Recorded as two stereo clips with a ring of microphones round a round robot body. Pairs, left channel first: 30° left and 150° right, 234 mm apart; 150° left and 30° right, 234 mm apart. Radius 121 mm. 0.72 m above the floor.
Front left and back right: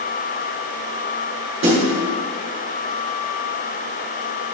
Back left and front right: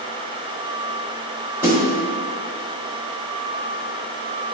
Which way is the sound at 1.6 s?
110° right.